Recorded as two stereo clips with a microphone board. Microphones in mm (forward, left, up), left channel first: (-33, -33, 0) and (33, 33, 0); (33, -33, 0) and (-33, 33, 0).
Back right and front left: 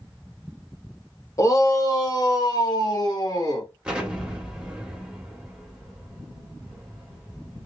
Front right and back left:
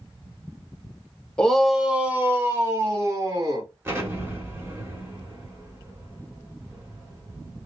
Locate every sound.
1.4 s a shout: 120° right, 1.1 m; by 3.7 s straight behind, 2.5 m
3.9 s an explosion: 115° left, 1.4 m